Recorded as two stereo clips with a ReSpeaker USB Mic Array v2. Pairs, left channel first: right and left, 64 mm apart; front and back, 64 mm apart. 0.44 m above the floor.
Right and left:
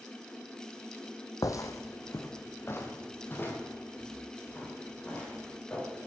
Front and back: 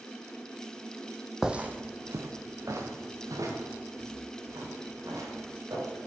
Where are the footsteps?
100° right, 0.8 m; by 5.9 s 155° right, 6.5 m.